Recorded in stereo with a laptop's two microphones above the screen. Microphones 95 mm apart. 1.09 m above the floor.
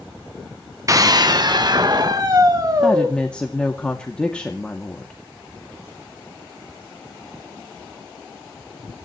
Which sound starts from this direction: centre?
A woman speaking, at 2.8 s.